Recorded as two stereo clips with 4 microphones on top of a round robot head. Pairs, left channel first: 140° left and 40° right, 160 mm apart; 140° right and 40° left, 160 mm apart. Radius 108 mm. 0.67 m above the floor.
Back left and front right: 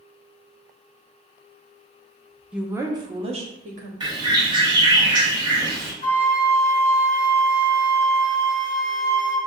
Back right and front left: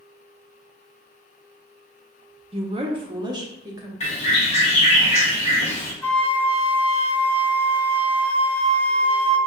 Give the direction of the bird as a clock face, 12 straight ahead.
3 o'clock.